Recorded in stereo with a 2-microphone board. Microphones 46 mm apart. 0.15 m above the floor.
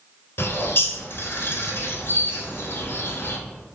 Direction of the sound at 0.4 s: 55° left (ahead or behind).